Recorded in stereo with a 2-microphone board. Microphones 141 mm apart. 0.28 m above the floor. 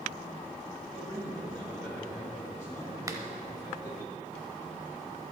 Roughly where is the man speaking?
Right.